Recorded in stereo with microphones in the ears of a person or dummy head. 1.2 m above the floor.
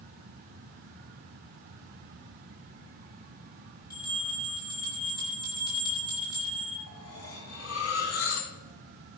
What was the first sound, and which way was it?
A bell, 20° left (ahead or behind).